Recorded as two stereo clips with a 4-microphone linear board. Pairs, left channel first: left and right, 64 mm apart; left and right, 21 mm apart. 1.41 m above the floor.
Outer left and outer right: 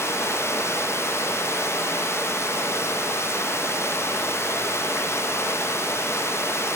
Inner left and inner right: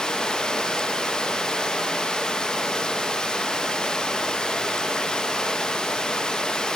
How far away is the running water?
About 0.8 m.